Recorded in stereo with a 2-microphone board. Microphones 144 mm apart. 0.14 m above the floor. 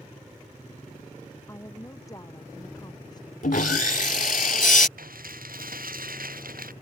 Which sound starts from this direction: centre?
A woman speaking, at 1.5 s.